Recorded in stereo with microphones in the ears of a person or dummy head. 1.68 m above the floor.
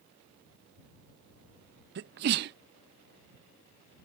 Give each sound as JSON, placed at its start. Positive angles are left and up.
{"t": 1.9, "sound": "a sneeze", "side_deg": -50}